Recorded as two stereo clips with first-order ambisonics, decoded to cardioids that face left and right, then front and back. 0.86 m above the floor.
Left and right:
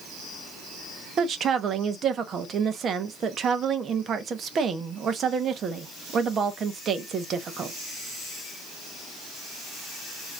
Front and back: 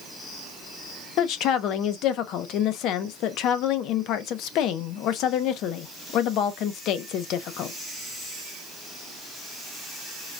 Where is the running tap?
No running tap in this recording.